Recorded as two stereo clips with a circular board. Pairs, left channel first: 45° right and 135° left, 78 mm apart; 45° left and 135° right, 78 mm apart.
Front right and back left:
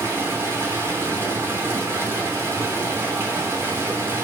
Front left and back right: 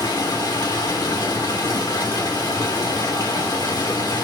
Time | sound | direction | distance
0.0 | running water | 75° left | 3 m